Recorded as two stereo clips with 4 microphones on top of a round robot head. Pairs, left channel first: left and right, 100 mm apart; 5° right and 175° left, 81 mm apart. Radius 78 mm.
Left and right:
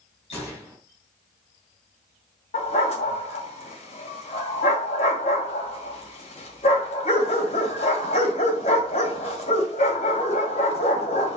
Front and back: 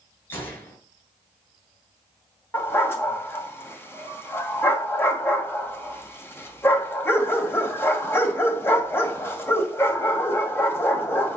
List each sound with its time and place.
0.3 s a gunshot: 55° left, 5 m
2.5 s a dog barking: 55° left, 2 m